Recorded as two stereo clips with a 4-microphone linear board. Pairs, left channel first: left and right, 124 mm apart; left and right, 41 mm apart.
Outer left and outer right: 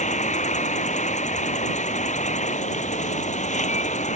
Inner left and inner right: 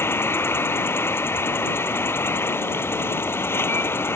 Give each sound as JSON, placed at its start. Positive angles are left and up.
{"t": 0.0, "sound": "an insect", "side_deg": 75}